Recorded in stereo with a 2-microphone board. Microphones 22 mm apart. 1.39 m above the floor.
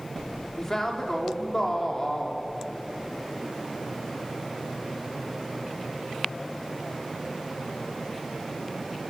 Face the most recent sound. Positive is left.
turn(degrees=20)  # may be behind; listen again after turning